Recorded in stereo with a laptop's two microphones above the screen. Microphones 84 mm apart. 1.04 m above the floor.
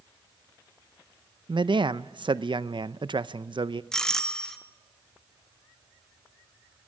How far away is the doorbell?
About 1.5 m.